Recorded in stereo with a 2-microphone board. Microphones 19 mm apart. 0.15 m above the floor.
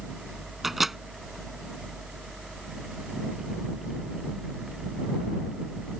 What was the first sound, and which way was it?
A microwave, 10° right (ahead or behind).